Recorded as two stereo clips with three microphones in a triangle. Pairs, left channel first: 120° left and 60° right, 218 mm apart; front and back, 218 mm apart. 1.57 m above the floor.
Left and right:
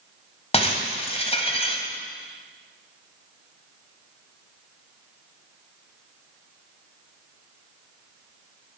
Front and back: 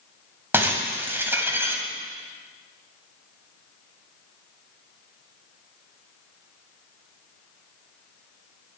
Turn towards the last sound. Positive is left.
turn(degrees=110)